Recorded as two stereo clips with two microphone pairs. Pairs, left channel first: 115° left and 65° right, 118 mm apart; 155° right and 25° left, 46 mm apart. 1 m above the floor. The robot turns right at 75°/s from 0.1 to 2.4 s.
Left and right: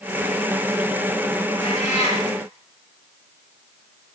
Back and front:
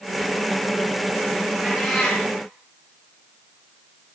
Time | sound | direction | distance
1.6 | a cat meowing | 95° left | 5 m